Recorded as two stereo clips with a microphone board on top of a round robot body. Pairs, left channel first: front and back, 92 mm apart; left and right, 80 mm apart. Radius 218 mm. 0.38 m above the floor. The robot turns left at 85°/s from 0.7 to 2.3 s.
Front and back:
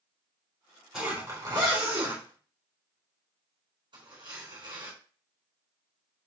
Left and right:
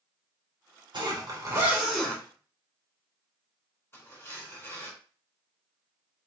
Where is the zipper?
90° right, 3.5 m; by 4.9 s 155° left, 3.5 m.